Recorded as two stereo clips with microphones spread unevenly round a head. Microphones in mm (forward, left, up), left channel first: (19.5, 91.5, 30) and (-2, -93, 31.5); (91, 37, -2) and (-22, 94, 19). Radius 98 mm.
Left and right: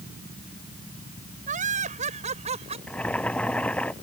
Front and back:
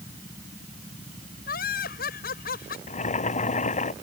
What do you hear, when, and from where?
1.5 s laughter: 45° right; by 2.8 s 40° right
2.9 s boiling: straight ahead